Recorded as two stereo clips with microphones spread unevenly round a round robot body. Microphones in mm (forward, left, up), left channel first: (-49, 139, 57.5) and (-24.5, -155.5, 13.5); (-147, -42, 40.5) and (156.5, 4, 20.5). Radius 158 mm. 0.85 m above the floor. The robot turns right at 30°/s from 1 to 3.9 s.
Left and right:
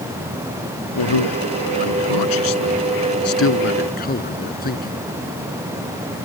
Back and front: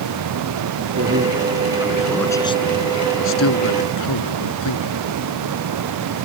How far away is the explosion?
I don't hear an explosion.